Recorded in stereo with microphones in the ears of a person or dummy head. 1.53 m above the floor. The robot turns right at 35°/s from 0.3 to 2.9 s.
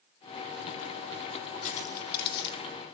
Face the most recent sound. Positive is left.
turn(degrees=80)